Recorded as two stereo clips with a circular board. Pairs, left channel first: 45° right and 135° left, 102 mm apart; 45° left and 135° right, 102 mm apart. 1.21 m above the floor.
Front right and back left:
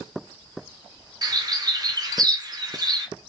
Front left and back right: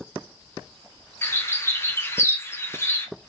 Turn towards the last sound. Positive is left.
turn(degrees=105)